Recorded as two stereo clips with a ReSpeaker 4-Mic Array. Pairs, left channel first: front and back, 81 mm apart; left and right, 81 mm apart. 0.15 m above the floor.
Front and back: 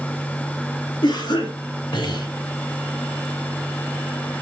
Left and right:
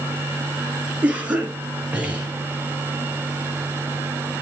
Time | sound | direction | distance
1.0 | a cough | 15° right | 2.5 m